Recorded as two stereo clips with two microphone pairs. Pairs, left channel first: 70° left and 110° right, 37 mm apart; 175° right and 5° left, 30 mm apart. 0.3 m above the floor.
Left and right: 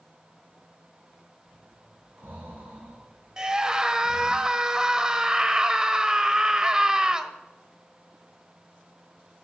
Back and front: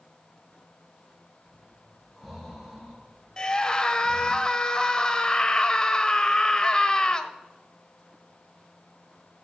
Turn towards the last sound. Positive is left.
turn(degrees=-155)